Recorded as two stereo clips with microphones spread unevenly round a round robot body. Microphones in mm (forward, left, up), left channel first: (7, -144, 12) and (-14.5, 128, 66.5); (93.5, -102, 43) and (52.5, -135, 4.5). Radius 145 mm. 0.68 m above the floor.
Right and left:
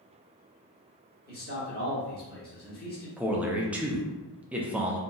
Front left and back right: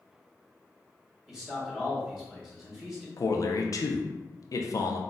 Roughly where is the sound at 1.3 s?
Right.